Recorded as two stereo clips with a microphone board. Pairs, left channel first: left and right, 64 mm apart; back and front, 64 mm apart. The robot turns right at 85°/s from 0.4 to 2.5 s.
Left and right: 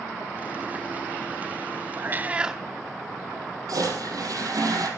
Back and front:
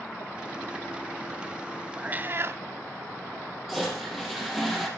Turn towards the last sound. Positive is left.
turn(degrees=-95)